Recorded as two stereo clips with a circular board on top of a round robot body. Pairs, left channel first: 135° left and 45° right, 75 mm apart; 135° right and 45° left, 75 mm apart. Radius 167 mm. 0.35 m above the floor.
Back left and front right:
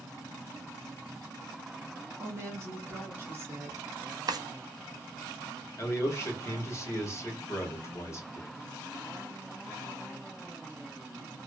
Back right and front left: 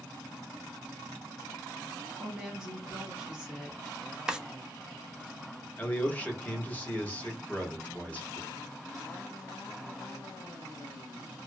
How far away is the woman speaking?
About 1.6 m.